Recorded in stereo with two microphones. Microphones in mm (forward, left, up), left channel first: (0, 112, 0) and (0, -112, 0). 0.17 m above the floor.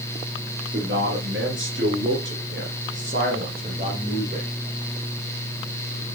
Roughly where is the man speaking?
Right.